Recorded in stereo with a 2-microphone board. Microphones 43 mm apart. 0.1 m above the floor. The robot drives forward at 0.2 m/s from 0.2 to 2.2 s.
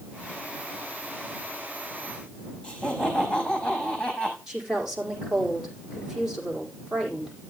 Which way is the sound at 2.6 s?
20° left (ahead or behind).